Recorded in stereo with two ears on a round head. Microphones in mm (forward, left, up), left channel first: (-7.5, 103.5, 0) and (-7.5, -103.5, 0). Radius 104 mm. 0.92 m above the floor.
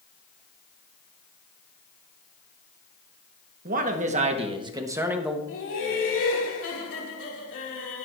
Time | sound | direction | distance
3.6 | a man speaking | 40° right (ahead or behind) | 1.4 m
5.5 | laughter | 55° left (ahead or behind) | 2.5 m